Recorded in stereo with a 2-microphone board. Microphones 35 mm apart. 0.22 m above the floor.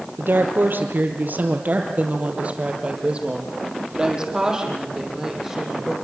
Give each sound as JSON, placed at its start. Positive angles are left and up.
{"t": 0.2, "sound": "a woman speaking", "side_deg": -75, "distance_m": 4.5}